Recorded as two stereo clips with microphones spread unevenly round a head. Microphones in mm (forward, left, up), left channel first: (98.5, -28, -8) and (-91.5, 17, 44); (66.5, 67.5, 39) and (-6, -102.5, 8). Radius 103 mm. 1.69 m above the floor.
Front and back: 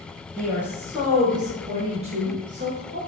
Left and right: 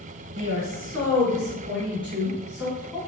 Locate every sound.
0.3 s a woman speaking: 120° right, 1.1 m; by 3.0 s 140° left, 1.0 m